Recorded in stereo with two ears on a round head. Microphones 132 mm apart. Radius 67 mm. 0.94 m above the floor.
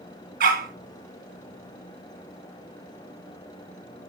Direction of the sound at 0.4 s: 70° right (ahead or behind).